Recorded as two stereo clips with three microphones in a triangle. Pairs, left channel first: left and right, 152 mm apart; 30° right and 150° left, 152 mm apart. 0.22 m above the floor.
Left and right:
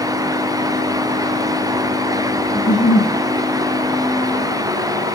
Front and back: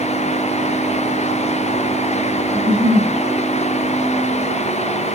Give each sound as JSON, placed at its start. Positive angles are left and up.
{"t": 2.5, "sound": "a giggle", "azimuth_deg": 100, "distance_m": 4.5}